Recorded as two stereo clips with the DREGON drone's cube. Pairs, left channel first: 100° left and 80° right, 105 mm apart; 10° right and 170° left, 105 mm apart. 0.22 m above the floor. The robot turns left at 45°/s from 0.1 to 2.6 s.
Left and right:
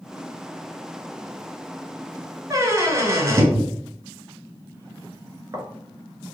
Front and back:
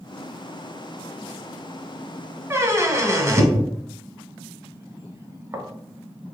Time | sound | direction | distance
2.5 | a squeak | 125° right | 0.6 m